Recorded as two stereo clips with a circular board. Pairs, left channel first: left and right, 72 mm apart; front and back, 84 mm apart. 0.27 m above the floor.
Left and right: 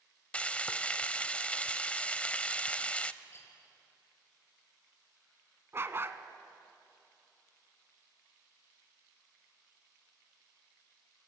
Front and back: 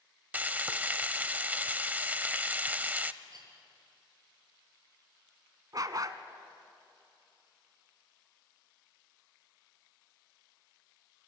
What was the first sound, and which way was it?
Frying, 135° left.